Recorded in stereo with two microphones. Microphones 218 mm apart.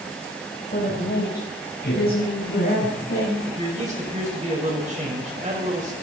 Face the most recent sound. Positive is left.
turn(degrees=-35)  # may be behind; listen again after turning